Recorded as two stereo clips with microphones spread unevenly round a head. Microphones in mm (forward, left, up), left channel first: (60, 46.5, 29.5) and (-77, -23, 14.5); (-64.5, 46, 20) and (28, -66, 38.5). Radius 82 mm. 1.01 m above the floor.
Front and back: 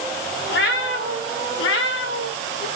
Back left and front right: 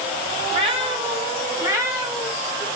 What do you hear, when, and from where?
0.5 s a cat meowing: straight ahead, 2.5 m; by 2.7 s 35° left, 3.5 m